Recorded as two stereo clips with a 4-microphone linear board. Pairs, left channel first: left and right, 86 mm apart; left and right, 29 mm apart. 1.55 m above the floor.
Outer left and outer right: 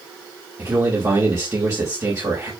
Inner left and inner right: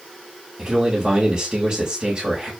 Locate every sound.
0.6 s a man speaking: 45° right (ahead or behind), 3.5 m